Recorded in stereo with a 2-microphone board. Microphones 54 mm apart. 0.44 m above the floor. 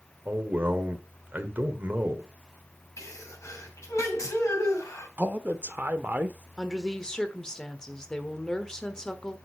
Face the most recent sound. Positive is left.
turn(degrees=15)  # may be behind; listen again after turning